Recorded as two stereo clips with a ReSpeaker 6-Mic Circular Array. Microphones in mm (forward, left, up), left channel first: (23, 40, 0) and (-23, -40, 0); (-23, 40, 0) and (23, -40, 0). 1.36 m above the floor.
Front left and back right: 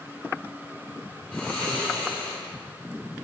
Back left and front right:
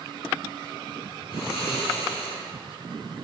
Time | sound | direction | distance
1.3 | snoring | 135° left | 2.5 m